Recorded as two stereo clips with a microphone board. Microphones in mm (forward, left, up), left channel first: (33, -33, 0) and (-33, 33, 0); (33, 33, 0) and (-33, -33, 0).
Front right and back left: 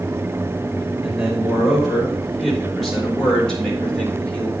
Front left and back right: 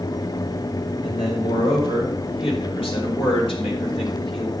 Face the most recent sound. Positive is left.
turn(degrees=30)